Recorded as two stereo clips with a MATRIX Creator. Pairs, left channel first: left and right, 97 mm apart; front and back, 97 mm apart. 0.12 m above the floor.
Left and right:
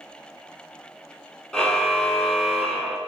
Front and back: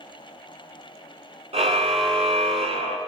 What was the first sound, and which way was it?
A car horn, 170° left.